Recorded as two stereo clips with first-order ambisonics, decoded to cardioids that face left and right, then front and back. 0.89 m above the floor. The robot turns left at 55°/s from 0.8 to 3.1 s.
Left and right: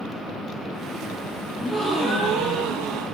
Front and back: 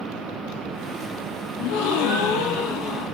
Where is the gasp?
20° left, 5 m; by 3.0 s 60° right, 5 m.